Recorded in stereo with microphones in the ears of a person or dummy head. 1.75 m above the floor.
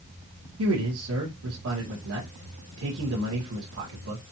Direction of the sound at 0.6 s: 85° right.